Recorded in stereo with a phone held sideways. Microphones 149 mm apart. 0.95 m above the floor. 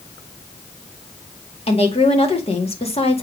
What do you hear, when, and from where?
1.7 s a woman speaking: 40° left (ahead or behind), 2.0 m